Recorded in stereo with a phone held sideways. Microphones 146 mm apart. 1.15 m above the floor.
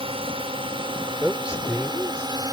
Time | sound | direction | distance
0.0 | a drone | 40° right (ahead or behind) | ?
1.2 | a man speaking | 5° right (ahead or behind) | ?